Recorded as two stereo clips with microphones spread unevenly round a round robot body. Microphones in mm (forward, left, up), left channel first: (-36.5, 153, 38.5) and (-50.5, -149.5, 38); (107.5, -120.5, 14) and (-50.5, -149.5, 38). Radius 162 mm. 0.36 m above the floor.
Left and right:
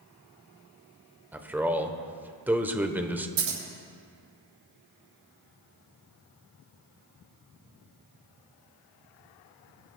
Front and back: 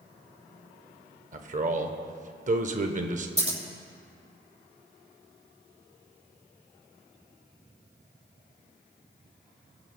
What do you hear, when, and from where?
1.3 s a man speaking: 175° right, 1.0 m
3.4 s scissors: 125° right, 5.5 m